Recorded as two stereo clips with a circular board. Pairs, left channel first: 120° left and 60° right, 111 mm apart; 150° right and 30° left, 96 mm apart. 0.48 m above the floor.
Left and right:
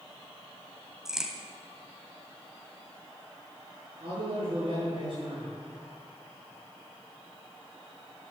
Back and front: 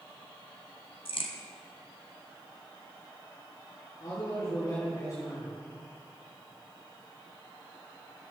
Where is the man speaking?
95° right, 7 m.